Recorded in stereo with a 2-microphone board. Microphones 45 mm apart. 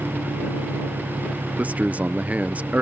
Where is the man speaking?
35° right (ahead or behind).